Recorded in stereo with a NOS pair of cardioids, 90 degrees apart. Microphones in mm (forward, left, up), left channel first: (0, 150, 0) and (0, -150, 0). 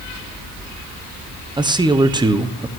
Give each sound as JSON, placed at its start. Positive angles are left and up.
{"t": 1.6, "sound": "a man speaking", "azimuth_deg": -15, "distance_m": 1.0}